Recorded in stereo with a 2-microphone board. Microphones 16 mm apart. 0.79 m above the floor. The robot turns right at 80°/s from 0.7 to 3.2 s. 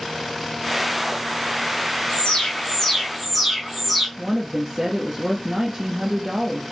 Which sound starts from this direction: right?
A woman speaking, at 4.2 s.